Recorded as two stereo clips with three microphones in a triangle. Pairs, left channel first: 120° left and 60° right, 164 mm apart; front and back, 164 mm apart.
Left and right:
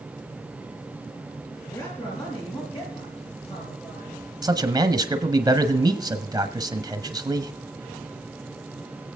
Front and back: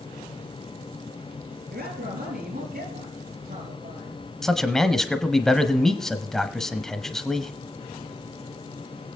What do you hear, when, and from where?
1.7 s a man speaking: 175° right, 6 m; by 4.2 s 165° left, 6.5 m
4.4 s a man speaking: 85° right, 1.0 m